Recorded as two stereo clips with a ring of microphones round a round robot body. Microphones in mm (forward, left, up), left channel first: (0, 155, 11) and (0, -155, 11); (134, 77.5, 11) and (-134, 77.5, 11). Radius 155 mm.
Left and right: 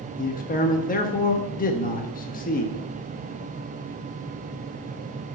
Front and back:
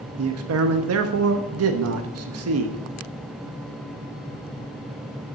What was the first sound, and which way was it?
A man speaking, 150° left.